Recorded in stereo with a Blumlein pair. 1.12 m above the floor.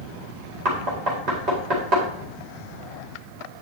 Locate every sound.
0.7 s knocking: 35° right, 4 m